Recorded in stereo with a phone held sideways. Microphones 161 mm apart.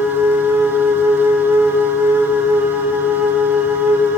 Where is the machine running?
10° right (ahead or behind), 0.8 m.